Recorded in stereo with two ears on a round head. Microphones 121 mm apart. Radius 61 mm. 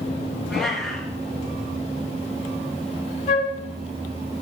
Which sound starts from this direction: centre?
A cat meowing, at 0.5 s.